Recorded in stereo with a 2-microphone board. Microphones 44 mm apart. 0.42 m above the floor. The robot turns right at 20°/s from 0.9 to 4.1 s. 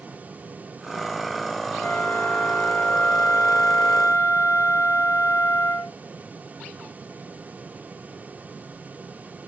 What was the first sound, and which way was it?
A flute, 50° left.